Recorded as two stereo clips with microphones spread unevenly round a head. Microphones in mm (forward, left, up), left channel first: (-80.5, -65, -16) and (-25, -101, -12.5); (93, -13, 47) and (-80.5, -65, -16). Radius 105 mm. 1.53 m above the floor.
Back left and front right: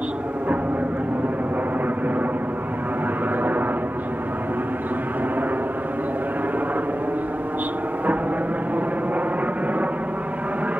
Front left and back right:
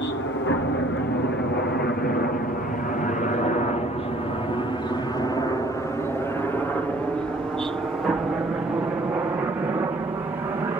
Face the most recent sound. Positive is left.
turn(degrees=-100)